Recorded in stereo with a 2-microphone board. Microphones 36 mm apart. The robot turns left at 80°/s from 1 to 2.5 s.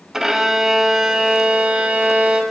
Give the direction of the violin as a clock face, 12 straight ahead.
1 o'clock.